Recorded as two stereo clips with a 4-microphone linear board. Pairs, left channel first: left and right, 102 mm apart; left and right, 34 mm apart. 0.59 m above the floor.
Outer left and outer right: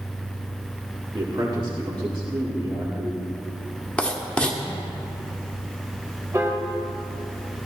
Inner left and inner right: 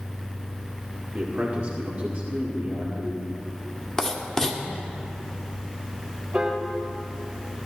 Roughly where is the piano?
Right.